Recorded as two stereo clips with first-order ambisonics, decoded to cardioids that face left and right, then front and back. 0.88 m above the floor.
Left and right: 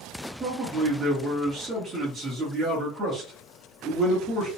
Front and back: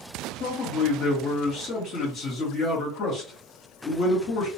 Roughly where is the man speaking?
Ahead right.